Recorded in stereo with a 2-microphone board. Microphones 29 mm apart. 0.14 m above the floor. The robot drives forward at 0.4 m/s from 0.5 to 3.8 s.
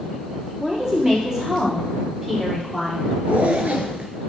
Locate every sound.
0.6 s a woman speaking: 20° right (ahead or behind), 3 m; by 3.1 s 15° right (ahead or behind), 4 m
3.3 s a zipper: 55° right (ahead or behind), 1.0 m